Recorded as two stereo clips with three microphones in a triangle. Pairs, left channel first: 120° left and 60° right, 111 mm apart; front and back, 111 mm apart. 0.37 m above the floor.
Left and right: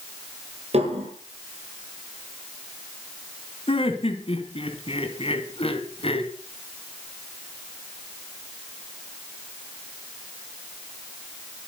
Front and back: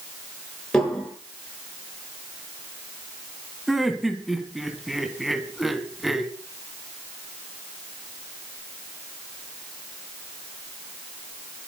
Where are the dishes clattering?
85° right, 6 m.